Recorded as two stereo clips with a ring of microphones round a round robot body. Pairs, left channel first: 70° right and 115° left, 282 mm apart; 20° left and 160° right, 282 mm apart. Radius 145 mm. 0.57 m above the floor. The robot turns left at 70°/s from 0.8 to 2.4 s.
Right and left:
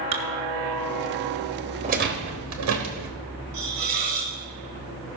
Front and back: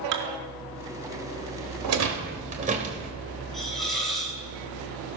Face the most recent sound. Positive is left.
turn(degrees=110)